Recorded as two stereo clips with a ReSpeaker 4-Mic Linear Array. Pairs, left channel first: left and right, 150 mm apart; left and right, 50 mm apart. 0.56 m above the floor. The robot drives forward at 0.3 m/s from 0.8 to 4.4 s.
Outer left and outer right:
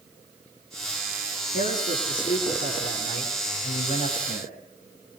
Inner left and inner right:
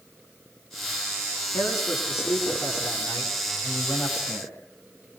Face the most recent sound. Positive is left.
turn(degrees=65)  # may be behind; listen again after turning